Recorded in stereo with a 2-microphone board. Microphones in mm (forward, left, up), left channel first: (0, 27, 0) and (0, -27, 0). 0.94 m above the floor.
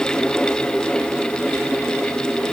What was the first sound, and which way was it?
Only background noise.